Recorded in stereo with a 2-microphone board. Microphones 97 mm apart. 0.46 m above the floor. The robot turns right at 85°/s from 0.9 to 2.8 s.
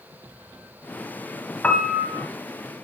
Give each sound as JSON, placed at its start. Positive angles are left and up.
{"t": 1.6, "sound": "a piano", "azimuth_deg": 165, "distance_m": 0.9}